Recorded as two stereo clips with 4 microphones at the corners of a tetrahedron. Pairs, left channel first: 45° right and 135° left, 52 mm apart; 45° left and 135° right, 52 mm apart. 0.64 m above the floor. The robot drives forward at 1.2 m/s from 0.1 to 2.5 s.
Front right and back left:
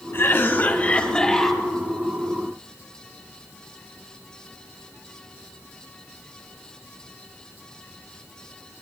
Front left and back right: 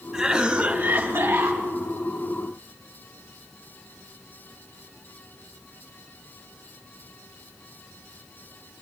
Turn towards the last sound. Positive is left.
turn(degrees=-155)